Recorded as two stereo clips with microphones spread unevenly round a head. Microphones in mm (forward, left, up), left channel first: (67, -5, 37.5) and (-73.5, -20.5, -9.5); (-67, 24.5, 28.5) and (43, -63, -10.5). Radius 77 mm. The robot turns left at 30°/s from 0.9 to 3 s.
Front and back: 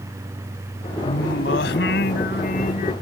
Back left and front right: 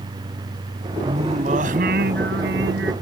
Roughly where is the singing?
Ahead left.